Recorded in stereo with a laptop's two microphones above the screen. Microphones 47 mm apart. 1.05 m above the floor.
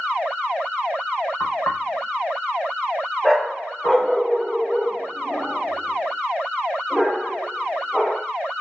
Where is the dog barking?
10° left (ahead or behind), 5 m.